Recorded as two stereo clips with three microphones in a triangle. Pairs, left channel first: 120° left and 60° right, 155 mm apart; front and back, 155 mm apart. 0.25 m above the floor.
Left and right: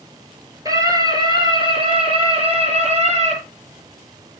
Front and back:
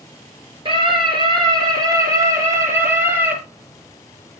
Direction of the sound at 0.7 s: 125° right.